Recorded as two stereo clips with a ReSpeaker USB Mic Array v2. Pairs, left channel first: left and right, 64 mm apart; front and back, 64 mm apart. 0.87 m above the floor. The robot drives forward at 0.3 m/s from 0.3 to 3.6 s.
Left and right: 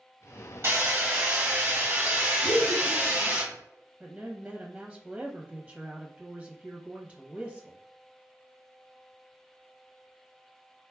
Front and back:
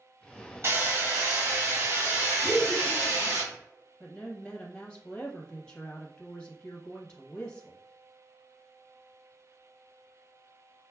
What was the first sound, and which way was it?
Hammering, 140° right.